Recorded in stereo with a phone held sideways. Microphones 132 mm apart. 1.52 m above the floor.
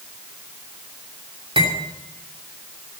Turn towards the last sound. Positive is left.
turn(degrees=-40)  # may be behind; listen again after turning